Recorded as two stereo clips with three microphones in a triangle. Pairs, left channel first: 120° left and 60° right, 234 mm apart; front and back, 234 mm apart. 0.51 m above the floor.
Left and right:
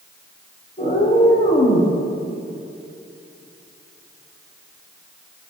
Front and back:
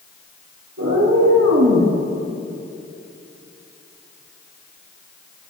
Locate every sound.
0.8 s a cat meowing: straight behind, 5 m